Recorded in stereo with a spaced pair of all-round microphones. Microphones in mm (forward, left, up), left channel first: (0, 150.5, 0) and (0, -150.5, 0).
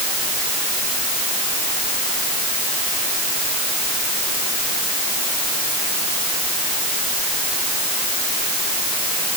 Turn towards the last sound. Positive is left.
No sound to turn to.